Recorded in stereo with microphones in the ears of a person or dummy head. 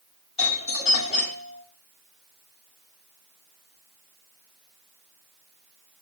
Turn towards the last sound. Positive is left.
turn(degrees=30)  # may be behind; listen again after turning